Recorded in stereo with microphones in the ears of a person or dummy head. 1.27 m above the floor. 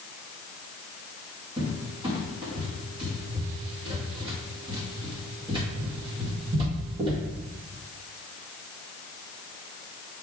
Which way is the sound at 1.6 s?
25° right (ahead or behind).